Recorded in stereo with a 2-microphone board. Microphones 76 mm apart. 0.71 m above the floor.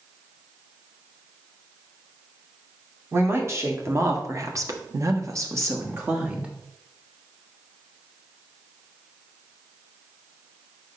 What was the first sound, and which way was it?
A woman speaking, 35° right (ahead or behind).